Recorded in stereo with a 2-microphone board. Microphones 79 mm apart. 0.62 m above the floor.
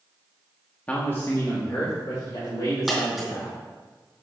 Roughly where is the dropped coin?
Centre.